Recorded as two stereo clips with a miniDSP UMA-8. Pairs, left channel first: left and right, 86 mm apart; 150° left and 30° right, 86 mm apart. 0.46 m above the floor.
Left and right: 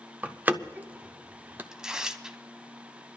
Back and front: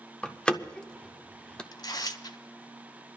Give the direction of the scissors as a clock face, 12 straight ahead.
No scissors in this recording.